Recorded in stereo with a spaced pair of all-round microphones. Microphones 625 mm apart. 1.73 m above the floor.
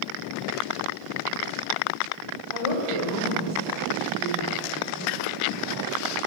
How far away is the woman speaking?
About 3 m.